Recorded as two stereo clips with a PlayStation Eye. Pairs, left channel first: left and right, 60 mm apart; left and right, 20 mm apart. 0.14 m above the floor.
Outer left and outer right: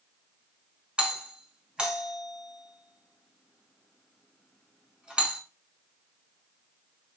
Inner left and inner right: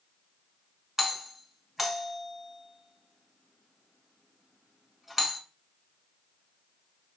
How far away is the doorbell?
About 1.6 m.